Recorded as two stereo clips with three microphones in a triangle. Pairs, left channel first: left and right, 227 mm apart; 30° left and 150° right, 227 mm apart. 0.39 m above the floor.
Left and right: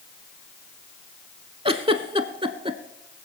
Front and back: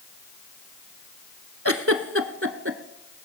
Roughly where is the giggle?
Behind.